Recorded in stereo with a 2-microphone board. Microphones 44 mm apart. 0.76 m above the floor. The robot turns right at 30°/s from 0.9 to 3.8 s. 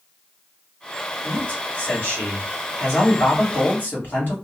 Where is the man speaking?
40° left, 1.7 m; by 4.3 s 115° left, 1.7 m.